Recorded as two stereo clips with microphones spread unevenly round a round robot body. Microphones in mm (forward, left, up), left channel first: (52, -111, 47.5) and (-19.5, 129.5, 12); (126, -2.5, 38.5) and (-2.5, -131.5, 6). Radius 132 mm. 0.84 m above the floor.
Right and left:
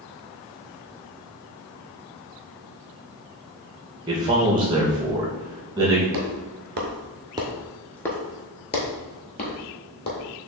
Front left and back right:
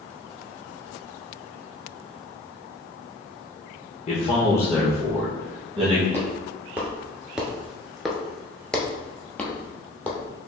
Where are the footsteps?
135° left, 1.0 m; by 10.2 s 30° right, 1.7 m.